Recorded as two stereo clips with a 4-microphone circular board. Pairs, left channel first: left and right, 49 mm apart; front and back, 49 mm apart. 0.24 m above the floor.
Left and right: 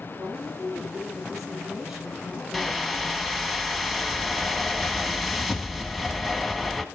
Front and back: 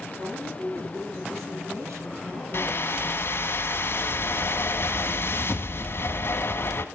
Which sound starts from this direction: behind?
A woman speaking, at 0.2 s.